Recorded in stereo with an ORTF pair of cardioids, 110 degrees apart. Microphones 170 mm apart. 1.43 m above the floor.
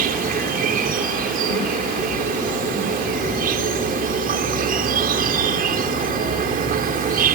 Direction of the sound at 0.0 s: 60° right.